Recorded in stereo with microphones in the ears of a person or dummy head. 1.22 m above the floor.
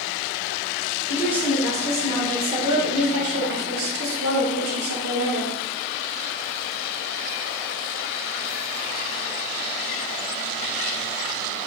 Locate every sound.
1.1 s a woman speaking: 5° right (ahead or behind), 1.7 m; by 5.5 s 70° right (ahead or behind), 1.6 m